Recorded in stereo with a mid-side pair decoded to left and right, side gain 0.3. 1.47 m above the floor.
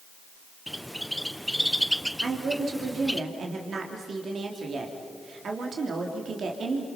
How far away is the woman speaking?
About 3 m.